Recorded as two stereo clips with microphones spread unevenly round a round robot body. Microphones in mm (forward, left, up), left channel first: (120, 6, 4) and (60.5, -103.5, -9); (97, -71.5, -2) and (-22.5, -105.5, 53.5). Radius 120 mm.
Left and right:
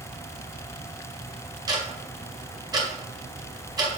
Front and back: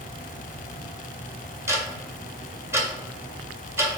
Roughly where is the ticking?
Right.